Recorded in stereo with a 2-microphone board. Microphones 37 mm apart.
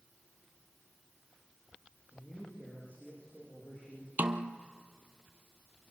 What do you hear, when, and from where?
2.1 s a man speaking: 40° left (ahead or behind), 7 m
4.2 s a snare drum: 55° right (ahead or behind), 0.9 m